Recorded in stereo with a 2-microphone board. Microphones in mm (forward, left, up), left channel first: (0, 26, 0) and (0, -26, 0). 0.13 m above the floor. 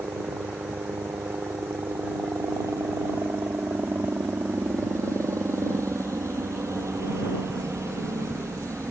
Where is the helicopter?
70° right (ahead or behind).